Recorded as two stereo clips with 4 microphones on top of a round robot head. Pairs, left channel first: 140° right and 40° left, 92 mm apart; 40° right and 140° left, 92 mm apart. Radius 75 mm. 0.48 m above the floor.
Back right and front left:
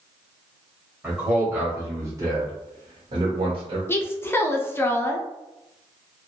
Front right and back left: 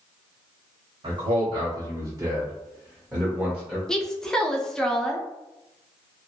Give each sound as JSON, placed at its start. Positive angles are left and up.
{"t": 1.0, "sound": "a man speaking", "azimuth_deg": 125, "distance_m": 1.4}
{"t": 3.9, "sound": "a woman speaking", "azimuth_deg": -115, "distance_m": 0.7}